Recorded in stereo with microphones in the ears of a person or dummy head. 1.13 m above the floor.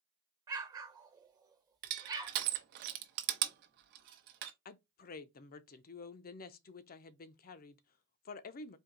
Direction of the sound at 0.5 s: 20° right (ahead or behind).